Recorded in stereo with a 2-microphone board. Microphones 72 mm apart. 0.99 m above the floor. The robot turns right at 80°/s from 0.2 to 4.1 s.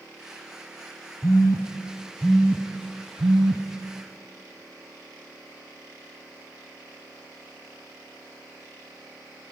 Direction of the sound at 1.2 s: 75° left (ahead or behind).